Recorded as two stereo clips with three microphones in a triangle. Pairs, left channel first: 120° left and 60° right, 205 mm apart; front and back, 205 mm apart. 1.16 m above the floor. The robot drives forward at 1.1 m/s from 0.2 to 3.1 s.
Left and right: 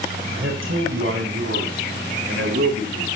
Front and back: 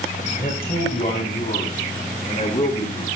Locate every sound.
0.3 s a man speaking: 45° right, 9.5 m; by 3.1 s 60° right, 7.5 m